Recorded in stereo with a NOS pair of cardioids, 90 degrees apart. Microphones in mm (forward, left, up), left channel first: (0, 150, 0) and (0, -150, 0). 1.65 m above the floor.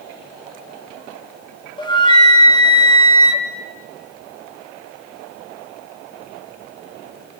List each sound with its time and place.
1.8 s a flute: 15° left, 2.5 m